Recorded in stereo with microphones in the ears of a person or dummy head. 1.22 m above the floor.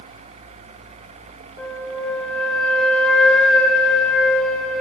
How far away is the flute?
About 2.0 m.